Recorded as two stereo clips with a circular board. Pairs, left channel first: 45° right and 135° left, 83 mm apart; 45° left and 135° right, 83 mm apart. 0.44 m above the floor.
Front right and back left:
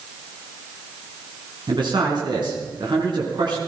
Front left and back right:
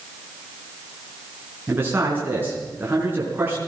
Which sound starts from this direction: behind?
A man speaking, at 1.7 s.